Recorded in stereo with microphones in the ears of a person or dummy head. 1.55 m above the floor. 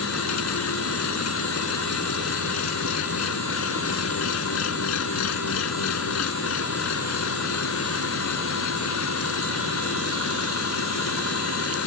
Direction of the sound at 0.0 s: 75° left (ahead or behind).